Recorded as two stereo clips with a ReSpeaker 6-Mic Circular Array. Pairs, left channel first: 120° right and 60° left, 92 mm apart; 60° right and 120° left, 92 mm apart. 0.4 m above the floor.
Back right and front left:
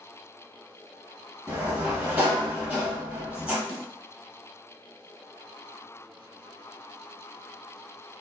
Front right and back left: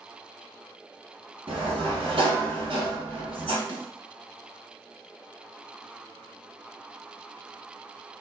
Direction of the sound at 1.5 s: 135° left.